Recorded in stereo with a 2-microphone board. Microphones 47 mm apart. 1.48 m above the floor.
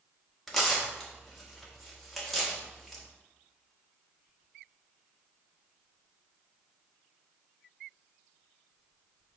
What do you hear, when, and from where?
0.5 s tearing paper: 5° left (ahead or behind), 1.4 m